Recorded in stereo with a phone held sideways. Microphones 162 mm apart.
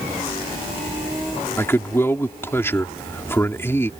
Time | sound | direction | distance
1.6 | a man speaking | 15° left (ahead or behind) | ?